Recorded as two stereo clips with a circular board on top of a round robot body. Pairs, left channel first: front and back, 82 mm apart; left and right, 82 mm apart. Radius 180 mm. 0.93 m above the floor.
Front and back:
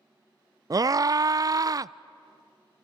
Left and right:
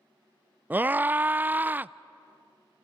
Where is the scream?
150° right, 0.5 m.